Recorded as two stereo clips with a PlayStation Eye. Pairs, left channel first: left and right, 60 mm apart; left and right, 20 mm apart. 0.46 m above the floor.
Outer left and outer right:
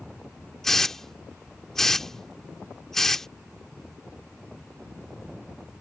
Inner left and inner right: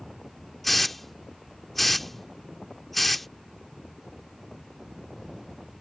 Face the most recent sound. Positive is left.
turn(degrees=5)  # may be behind; listen again after turning